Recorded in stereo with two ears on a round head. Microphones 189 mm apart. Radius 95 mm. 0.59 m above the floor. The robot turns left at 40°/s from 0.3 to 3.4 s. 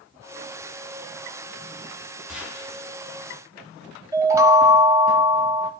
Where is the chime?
15° right (ahead or behind), 1.3 m.